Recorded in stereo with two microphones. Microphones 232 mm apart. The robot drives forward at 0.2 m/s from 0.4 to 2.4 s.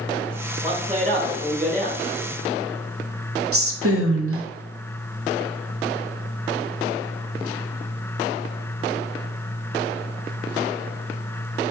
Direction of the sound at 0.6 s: 30° right (ahead or behind).